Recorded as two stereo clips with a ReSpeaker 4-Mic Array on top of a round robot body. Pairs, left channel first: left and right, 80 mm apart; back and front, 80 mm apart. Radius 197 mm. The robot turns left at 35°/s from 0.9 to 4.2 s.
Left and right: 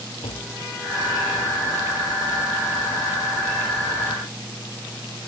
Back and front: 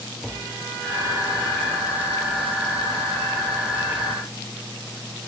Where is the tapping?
90° left.